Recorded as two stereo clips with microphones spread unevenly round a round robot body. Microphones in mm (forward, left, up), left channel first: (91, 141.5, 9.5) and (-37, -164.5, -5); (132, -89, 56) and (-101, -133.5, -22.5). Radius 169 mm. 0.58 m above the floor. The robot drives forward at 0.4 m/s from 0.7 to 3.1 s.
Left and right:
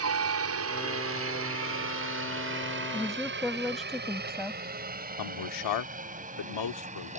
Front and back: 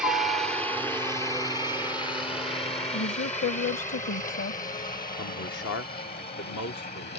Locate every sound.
0.0 s a helicopter: 105° right; by 7.2 s 45° right
2.9 s a woman speaking: 20° right
5.2 s a man speaking: 70° left